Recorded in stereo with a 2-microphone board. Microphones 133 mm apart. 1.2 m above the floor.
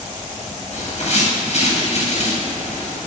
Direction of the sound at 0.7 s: 55° left (ahead or behind).